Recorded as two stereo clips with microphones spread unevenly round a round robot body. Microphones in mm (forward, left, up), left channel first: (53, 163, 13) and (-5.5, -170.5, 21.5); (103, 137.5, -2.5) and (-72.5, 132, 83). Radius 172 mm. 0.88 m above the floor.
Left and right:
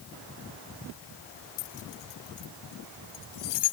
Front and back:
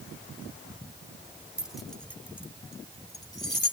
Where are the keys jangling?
95° left; by 3.7 s 65° left.